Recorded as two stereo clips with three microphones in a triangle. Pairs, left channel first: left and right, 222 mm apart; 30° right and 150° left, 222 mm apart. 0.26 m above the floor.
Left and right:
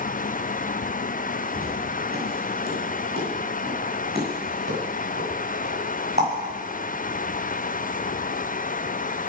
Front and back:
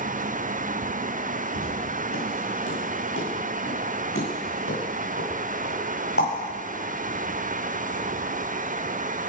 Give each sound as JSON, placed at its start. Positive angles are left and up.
{"t": 1.6, "sound": "footsteps", "azimuth_deg": -45, "distance_m": 7.5}